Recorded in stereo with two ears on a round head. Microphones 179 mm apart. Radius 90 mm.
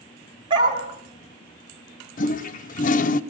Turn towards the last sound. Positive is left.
turn(degrees=40)  # may be behind; listen again after turning